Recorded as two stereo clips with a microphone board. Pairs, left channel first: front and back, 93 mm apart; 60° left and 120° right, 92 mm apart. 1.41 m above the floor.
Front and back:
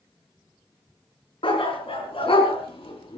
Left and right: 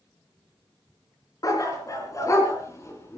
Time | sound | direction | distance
1.4 | a dog barking | 10° left | 5.5 m